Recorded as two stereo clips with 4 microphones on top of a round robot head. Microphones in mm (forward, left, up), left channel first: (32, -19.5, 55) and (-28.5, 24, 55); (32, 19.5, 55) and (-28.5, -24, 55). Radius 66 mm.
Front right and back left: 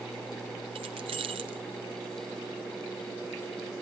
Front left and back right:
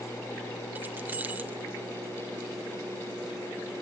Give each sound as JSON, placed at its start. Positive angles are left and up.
{"t": 0.8, "sound": "keys jangling", "azimuth_deg": 150, "distance_m": 0.5}